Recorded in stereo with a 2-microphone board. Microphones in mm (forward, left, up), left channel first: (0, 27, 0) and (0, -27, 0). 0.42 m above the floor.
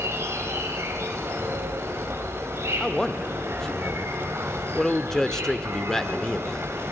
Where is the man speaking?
10° left (ahead or behind), 0.7 m.